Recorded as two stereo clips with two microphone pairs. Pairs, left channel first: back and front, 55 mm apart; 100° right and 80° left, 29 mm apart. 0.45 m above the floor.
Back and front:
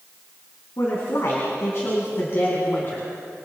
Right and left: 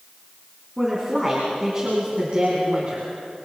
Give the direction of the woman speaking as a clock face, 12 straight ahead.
6 o'clock.